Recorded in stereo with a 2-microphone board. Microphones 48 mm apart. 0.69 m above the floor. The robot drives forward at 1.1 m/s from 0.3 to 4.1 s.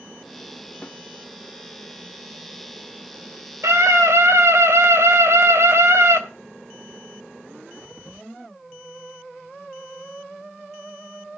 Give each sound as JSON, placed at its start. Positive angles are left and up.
{"t": 0.8, "sound": "a snare drum", "side_deg": 30, "distance_m": 0.8}
{"t": 3.6, "sound": "a scream", "side_deg": -75, "distance_m": 3.0}